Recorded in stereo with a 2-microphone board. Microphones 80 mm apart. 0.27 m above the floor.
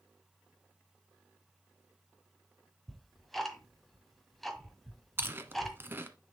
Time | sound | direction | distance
2.9 | ticking | centre (ahead or behind) | 1.4 m
5.2 | chewing | 30° right (ahead or behind) | 1.1 m